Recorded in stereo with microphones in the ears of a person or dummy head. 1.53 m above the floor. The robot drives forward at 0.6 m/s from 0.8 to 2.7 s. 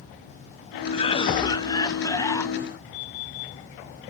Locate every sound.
0.9 s a cough: 30° left (ahead or behind); by 2.5 s 15° left (ahead or behind)